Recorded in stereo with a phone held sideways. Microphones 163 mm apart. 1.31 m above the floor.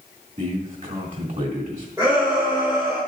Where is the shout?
20° right (ahead or behind), 3 m.